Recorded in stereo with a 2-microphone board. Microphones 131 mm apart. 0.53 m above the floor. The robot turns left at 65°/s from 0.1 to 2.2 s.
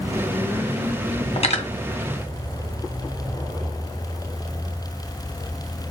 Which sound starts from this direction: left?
Cutlery clinking, at 1.4 s.